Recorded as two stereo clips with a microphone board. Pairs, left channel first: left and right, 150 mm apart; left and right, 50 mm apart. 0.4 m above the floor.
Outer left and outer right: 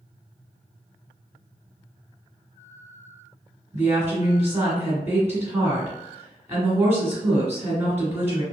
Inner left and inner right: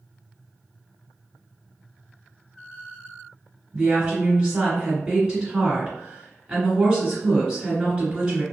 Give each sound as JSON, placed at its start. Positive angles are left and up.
{"t": 3.7, "sound": "a woman speaking", "side_deg": -15, "distance_m": 1.5}